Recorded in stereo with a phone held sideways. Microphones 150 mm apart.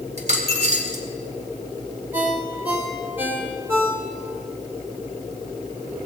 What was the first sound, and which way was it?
A dropped coin, 50° right (ahead or behind).